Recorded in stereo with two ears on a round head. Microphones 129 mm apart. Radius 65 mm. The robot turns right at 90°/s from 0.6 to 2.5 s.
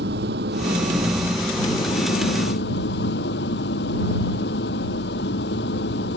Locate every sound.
0.0 s an engine running: 80° right; by 6.2 s 95° left